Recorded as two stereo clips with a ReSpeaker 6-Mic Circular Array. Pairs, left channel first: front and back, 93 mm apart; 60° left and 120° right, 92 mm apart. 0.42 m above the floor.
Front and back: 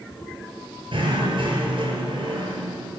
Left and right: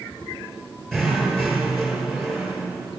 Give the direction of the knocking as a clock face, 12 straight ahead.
7 o'clock.